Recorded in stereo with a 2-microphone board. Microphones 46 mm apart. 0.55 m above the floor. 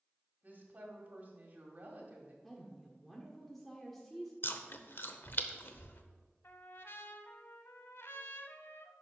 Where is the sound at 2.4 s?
5° left (ahead or behind), 1.2 m.